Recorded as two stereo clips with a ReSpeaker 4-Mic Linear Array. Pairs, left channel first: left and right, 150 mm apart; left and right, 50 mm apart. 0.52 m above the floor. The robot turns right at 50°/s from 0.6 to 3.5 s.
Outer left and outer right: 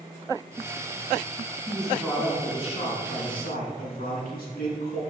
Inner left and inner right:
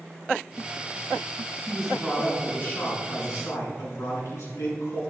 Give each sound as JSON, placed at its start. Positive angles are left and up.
{"t": 1.7, "sound": "a man speaking", "azimuth_deg": -10, "distance_m": 6.0}